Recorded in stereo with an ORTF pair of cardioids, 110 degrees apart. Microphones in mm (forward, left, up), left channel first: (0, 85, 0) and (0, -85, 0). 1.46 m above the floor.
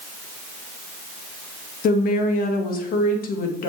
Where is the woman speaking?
55° left, 1.9 m.